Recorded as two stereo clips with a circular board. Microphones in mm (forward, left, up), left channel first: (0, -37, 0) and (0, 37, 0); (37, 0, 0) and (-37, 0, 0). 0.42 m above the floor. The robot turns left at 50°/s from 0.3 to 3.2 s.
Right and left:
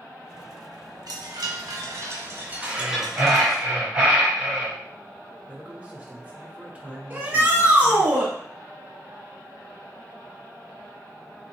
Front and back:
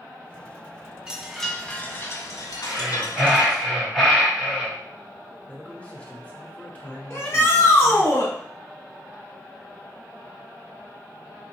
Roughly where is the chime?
Left.